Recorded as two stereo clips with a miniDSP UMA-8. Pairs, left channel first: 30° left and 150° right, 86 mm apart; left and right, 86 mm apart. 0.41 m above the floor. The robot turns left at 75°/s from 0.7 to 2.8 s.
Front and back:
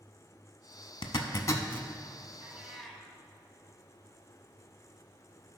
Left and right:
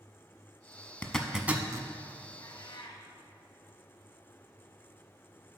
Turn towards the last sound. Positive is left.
turn(degrees=115)